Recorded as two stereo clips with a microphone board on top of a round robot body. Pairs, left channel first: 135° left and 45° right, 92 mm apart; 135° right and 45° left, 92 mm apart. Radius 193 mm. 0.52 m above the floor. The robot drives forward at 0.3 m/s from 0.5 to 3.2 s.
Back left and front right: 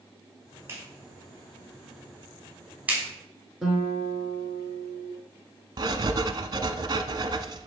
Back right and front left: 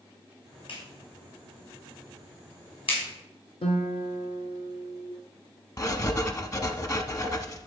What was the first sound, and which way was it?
A clap, 110° right.